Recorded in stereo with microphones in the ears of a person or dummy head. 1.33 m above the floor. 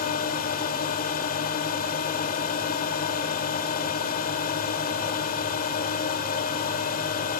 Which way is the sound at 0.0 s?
50° left (ahead or behind).